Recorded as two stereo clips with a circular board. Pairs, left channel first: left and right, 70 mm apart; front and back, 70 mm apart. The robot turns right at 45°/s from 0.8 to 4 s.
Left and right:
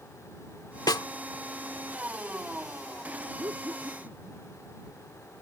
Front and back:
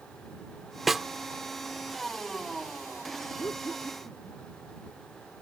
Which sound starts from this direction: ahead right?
Laughter, at 3.4 s.